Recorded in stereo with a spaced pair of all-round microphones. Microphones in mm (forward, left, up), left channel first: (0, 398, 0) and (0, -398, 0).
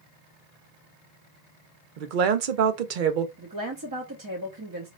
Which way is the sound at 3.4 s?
30° right (ahead or behind).